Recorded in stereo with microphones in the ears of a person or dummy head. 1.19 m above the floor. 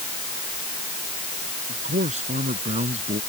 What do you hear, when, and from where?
1.7 s a man speaking: 50° right (ahead or behind); by 3.2 s 40° right (ahead or behind)